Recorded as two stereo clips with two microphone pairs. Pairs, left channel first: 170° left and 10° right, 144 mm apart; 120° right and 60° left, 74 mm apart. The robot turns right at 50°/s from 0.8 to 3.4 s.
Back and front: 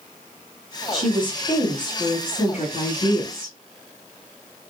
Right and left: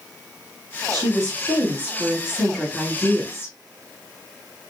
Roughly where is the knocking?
I don't hear knocking.